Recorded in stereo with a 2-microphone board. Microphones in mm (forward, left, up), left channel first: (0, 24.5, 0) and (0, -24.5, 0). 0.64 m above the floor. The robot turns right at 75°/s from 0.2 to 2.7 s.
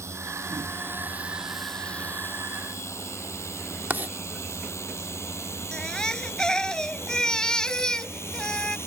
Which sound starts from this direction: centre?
A baby crying, at 5.7 s.